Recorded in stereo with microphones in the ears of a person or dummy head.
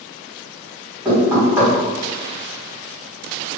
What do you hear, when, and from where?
1.1 s knocking: 15° right (ahead or behind), 1.3 m